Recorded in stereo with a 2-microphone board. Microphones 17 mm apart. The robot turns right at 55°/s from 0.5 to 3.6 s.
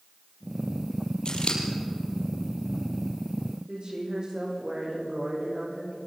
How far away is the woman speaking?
About 10 m.